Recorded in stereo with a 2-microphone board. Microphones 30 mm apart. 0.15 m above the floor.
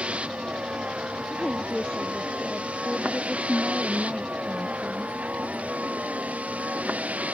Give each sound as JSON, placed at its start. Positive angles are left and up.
{"t": 0.0, "sound": "a vehicle", "side_deg": -45}
{"t": 1.3, "sound": "a woman speaking", "side_deg": 20}